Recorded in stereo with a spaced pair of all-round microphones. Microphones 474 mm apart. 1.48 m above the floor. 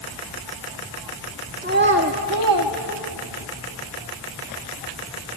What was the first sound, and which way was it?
A child speaking, 15° right (ahead or behind).